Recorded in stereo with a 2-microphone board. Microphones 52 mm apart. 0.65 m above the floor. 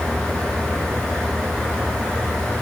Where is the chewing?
No chewing in this recording.